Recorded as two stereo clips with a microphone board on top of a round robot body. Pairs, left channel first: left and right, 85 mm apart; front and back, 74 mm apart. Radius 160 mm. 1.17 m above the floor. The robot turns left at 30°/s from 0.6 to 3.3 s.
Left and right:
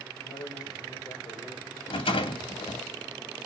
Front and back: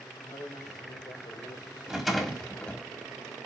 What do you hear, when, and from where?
0.2 s a man speaking: 60° left, 4.5 m; by 2.1 s 15° left, 4.5 m
1.9 s a rattle: 95° left, 2 m; by 2.8 s 65° left, 2 m